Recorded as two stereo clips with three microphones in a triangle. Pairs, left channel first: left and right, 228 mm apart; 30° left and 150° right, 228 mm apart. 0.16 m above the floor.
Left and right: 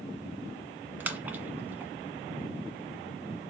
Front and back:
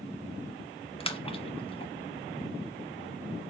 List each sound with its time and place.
1.0 s a splash: 15° right, 1.4 m